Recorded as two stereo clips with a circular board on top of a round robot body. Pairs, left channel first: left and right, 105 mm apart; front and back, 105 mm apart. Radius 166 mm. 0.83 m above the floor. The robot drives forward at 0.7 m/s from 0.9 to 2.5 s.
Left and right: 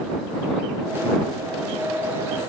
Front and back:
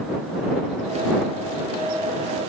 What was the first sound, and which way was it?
Only background noise.